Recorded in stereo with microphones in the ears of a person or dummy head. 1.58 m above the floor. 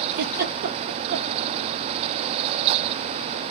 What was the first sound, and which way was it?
A giggle, 55° right (ahead or behind).